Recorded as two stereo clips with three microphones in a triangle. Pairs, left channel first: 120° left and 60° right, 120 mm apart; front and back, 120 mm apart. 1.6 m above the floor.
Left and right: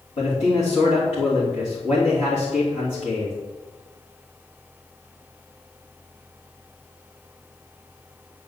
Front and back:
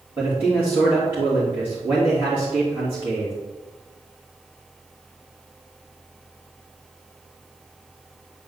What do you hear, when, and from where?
0.2 s a man speaking: 105° left, 3 m